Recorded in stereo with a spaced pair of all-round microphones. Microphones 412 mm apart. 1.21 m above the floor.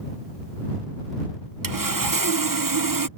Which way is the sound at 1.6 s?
50° right (ahead or behind).